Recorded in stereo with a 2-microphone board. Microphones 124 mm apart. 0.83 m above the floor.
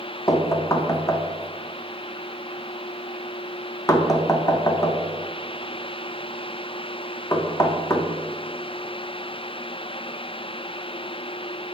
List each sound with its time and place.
0.3 s knocking: 30° left (ahead or behind), 0.7 m